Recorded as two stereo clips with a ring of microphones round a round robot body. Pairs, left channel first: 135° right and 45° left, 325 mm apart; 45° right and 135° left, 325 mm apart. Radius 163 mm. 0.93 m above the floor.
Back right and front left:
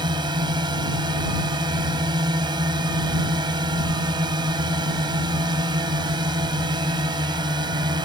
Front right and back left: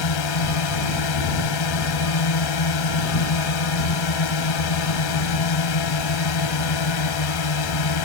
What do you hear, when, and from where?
0.0 s a drone: 30° right